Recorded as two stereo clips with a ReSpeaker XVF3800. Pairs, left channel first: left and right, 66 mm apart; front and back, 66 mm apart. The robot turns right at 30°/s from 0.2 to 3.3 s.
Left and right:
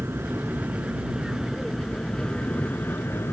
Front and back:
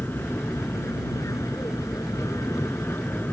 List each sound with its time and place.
0.0 s an aircraft: 45° right; by 3.3 s 50° left